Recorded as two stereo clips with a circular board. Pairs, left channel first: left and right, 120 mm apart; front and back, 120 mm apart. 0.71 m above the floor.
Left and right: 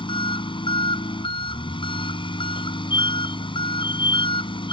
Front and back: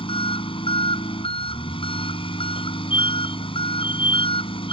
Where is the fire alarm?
45° left.